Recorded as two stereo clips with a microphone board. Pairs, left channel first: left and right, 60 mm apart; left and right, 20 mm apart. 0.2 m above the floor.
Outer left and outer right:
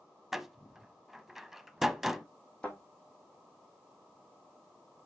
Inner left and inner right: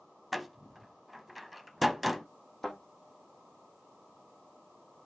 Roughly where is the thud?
Centre.